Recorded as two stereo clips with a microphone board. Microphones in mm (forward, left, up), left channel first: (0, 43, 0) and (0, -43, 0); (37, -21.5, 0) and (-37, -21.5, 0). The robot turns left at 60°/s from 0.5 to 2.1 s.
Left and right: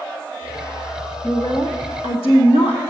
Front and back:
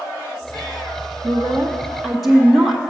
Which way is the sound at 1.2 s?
140° left.